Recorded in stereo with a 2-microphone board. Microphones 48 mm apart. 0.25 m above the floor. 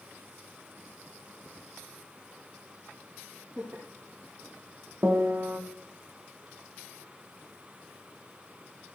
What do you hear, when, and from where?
3.6 s laughter: 45° right (ahead or behind), 4.5 m
5.0 s a piano: 45° right (ahead or behind), 1.1 m